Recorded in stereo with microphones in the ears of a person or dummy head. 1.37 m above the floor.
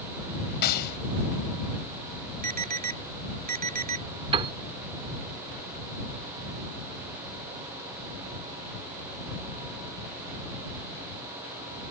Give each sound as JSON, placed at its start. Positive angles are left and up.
{"t": 0.6, "sound": "a gunshot", "side_deg": 55}
{"t": 2.4, "sound": "an alarm", "side_deg": -50}
{"t": 4.3, "sound": "a piano", "side_deg": -30}